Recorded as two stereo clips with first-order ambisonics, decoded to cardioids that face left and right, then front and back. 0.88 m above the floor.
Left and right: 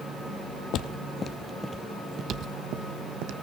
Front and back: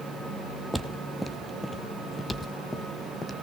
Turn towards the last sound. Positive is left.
turn(degrees=-80)